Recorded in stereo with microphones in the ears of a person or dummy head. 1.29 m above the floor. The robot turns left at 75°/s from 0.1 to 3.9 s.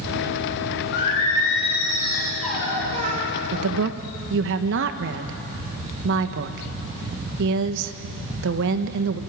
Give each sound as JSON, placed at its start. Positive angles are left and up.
{"t": 0.9, "sound": "singing", "azimuth_deg": 120, "distance_m": 6.0}
{"t": 3.5, "sound": "a woman speaking", "side_deg": -75, "distance_m": 1.3}